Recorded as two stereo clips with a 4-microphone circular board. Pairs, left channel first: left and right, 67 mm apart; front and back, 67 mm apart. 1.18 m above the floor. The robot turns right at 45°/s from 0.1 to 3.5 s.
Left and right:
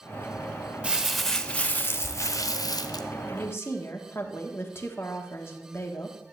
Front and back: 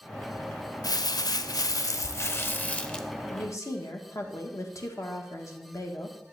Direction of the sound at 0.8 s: 15° right.